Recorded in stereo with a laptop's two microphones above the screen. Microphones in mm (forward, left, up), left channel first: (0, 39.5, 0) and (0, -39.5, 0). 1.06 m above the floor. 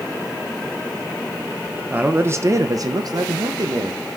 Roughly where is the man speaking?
Right.